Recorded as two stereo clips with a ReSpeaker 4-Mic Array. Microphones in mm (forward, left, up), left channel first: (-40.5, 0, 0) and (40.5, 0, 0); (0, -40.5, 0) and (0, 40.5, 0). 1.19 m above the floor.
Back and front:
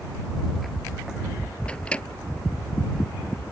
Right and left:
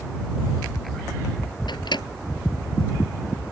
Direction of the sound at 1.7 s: 105° right.